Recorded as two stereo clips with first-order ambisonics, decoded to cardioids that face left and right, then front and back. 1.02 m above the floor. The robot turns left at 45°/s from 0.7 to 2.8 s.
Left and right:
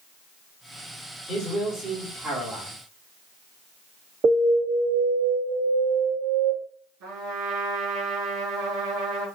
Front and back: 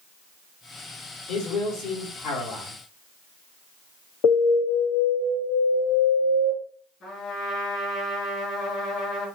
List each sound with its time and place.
1.3 s a man speaking: 45° left, 3 m; by 2.7 s 20° right, 3 m
4.2 s an alarm: 30° right, 2 m
7.0 s a trumpet: 65° right, 3.5 m